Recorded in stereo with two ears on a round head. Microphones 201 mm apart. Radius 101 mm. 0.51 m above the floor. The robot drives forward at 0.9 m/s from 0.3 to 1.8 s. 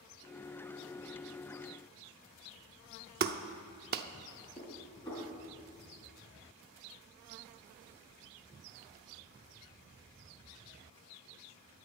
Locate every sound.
3.2 s a clap: 45° right (ahead or behind), 0.6 m
4.6 s dishes clattering: 20° left (ahead or behind), 4 m